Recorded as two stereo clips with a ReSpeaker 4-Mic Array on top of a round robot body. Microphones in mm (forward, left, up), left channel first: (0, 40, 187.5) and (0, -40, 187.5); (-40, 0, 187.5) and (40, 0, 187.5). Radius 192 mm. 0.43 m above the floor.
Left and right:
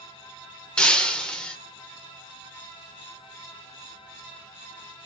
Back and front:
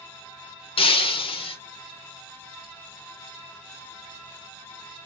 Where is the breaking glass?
170° left, 0.7 m.